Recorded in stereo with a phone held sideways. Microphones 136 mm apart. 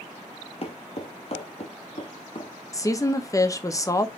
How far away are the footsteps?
About 1.2 m.